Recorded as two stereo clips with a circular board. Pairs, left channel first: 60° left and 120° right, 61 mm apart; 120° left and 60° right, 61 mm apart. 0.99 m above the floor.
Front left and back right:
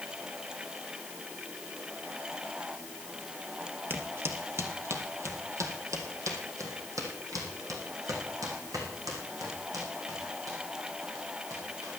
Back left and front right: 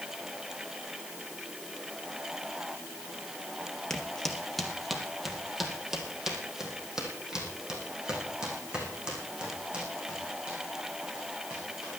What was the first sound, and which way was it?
Footsteps, 165° right.